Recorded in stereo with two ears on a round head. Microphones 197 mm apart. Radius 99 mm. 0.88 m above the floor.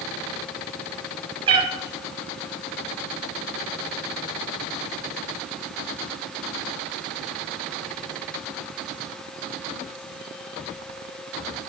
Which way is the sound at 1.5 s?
25° right (ahead or behind).